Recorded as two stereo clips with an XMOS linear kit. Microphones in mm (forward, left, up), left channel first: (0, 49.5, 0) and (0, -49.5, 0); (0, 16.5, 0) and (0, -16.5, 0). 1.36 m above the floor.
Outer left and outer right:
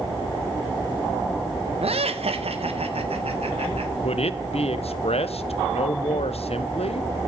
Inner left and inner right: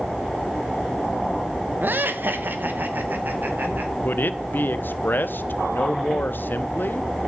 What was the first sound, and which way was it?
Laughter, 80° right.